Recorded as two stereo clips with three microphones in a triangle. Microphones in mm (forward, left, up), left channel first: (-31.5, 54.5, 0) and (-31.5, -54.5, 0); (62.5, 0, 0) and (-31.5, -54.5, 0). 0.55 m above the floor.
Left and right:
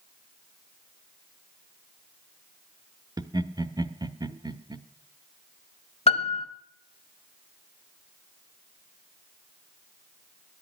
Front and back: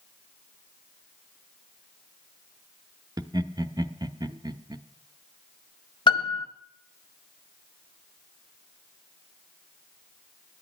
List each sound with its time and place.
3.2 s laughter: 120° right, 0.8 m
6.1 s a piano: 70° left, 1.0 m